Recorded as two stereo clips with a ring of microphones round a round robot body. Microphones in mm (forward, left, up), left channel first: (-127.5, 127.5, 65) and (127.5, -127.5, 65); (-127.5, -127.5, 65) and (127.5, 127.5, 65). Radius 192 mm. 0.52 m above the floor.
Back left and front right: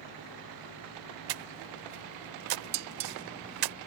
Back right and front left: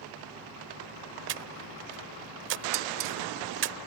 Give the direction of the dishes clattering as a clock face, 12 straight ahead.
12 o'clock.